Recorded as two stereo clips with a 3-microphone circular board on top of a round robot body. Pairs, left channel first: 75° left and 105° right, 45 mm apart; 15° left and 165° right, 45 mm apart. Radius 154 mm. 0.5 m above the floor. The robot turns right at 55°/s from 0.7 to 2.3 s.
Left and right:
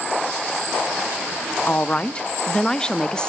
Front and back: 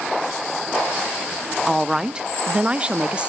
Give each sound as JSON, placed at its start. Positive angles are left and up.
{"t": 1.7, "sound": "a woman speaking", "azimuth_deg": 105, "distance_m": 0.8}